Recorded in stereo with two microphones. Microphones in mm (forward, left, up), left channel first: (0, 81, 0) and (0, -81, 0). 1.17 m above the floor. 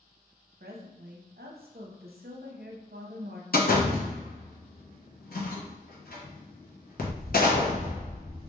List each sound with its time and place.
0.6 s a woman speaking: 75° right (ahead or behind), 0.6 m
3.5 s a door slam: 65° left (ahead or behind), 0.6 m